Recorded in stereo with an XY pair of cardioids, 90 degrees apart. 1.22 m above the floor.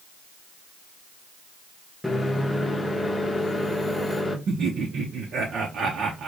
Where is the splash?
I don't hear a splash.